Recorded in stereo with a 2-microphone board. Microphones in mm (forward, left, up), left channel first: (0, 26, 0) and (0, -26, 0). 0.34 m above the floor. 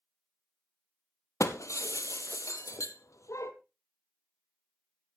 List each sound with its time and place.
1.4 s breaking glass: 80° left, 1.1 m